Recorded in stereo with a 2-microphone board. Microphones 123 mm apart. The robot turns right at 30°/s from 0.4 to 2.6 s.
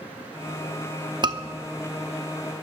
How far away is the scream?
About 1.0 m.